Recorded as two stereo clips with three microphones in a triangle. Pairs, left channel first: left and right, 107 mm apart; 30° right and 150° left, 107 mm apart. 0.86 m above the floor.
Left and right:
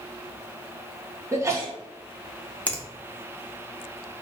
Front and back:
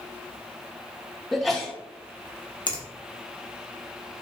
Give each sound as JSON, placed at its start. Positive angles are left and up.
{"t": 1.3, "sound": "a sneeze", "azimuth_deg": -115, "distance_m": 0.8}
{"t": 2.7, "sound": "a finger snap", "azimuth_deg": 10, "distance_m": 0.7}